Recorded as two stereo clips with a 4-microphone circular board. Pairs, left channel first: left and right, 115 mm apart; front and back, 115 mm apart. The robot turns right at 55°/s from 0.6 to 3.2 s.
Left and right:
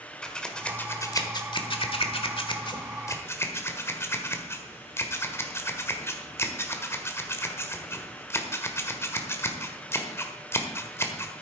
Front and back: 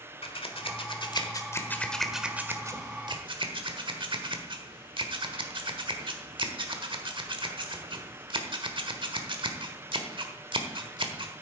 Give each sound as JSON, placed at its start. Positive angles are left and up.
{"t": 0.2, "sound": "scissors", "azimuth_deg": 10, "distance_m": 1.4}